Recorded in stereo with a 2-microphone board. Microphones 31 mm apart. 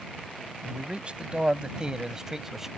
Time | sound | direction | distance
0.6 | a man speaking | 40° right (ahead or behind) | ?